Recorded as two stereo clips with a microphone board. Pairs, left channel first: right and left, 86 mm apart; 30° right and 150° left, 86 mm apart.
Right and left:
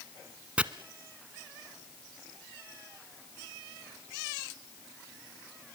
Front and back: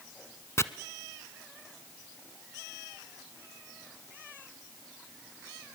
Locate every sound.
0.6 s chopping: 15° left, 0.9 m